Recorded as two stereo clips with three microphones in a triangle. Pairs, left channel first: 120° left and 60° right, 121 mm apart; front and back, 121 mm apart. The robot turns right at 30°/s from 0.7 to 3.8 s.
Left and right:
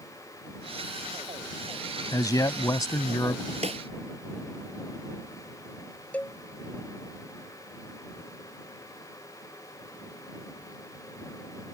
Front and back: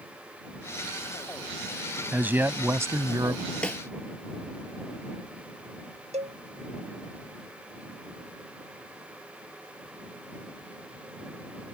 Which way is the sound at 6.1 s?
165° right.